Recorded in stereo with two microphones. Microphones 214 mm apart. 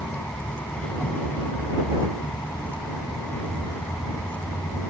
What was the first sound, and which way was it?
A vehicle, 5° left (ahead or behind).